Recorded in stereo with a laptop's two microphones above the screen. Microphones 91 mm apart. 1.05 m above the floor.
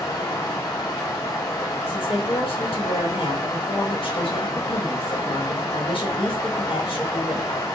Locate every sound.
0.0 s running water: 30° left (ahead or behind), 1.3 m
1.9 s a woman speaking: 75° left (ahead or behind), 1.6 m